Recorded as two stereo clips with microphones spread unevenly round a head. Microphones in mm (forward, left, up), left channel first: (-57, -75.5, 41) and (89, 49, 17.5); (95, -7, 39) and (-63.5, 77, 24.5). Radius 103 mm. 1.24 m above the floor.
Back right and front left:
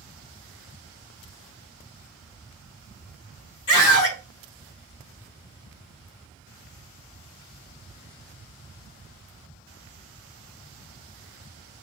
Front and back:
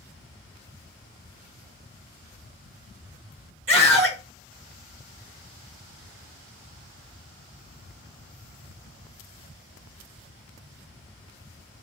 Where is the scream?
170° right, 3.5 m.